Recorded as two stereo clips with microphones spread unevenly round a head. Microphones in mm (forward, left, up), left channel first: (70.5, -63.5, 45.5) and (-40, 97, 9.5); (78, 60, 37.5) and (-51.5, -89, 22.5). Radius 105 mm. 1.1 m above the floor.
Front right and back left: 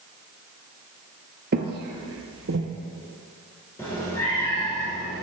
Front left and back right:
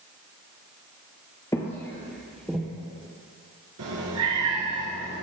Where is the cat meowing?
130° right, 3 m.